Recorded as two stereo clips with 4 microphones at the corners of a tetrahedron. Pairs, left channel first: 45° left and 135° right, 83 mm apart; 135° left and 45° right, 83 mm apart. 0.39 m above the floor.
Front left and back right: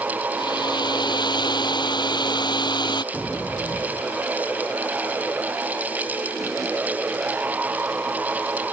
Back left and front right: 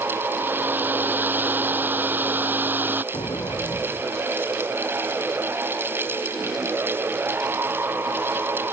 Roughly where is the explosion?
Behind left.